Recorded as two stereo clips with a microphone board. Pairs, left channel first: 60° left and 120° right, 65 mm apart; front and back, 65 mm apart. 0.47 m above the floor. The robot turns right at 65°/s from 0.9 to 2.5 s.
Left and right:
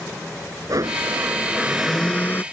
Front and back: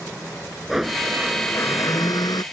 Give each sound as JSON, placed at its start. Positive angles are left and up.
{"t": 0.7, "sound": "a blender", "azimuth_deg": -95}